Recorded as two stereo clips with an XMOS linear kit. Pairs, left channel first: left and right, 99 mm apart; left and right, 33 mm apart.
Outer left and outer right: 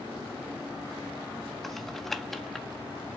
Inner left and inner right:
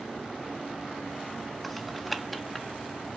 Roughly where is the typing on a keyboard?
Centre.